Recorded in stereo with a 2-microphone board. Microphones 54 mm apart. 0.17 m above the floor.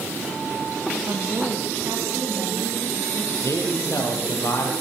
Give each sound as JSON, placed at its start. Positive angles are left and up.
{"t": 1.1, "sound": "a woman speaking", "side_deg": -60, "distance_m": 5.5}
{"t": 3.4, "sound": "a man speaking", "side_deg": 60, "distance_m": 5.5}